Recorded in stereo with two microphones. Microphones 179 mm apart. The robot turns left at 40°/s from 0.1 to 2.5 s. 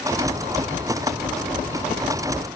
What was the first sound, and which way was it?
Only background noise.